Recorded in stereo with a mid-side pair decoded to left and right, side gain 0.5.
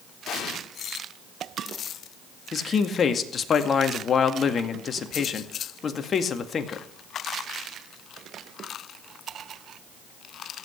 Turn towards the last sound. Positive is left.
turn(degrees=45)